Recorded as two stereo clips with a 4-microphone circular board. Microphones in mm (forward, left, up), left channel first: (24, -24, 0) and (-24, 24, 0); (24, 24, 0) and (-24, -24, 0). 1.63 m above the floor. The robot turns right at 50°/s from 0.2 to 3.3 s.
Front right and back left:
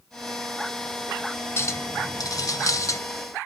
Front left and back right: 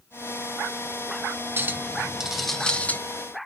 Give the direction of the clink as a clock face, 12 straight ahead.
3 o'clock.